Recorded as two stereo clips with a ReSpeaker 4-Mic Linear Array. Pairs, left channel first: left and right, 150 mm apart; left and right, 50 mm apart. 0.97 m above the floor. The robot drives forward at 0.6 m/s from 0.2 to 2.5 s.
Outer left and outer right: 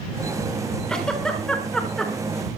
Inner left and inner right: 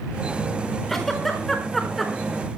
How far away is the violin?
No violin in this recording.